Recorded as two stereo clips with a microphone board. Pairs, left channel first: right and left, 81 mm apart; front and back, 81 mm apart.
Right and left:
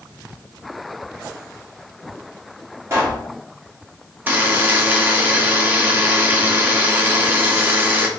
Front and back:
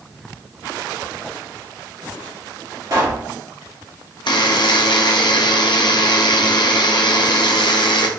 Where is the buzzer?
25° left, 0.6 m.